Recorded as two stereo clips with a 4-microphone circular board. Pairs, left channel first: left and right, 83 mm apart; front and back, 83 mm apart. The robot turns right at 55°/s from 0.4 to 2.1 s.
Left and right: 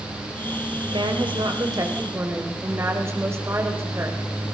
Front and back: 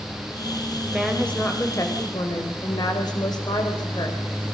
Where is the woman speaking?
100° right, 4.5 m; by 4.2 s 35° right, 4.5 m.